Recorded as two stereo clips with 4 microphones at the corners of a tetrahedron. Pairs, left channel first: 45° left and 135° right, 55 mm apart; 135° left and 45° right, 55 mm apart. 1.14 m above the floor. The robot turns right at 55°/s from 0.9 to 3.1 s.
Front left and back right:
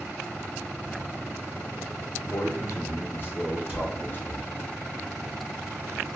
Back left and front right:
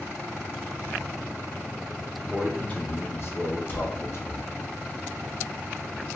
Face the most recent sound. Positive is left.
turn(degrees=180)